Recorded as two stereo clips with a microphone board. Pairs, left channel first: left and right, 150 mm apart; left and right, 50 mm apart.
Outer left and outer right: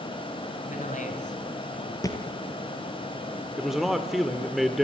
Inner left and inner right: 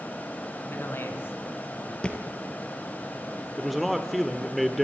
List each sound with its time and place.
0.7 s a man speaking: 55° left (ahead or behind), 4 m
2.0 s a thud: 25° left (ahead or behind), 2.5 m
3.6 s a man speaking: centre (ahead or behind), 1.4 m